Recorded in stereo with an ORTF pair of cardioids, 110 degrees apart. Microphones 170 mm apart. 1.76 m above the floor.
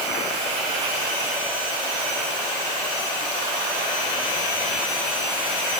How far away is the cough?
I don't hear a cough.